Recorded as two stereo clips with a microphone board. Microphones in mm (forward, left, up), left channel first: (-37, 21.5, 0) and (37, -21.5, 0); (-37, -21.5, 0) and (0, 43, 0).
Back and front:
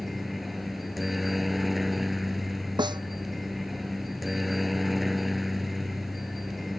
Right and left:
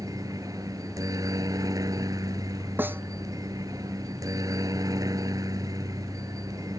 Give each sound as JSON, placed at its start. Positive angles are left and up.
{"t": 0.0, "sound": "a helicopter", "azimuth_deg": 60}
{"t": 2.8, "sound": "a snare drum", "azimuth_deg": 0}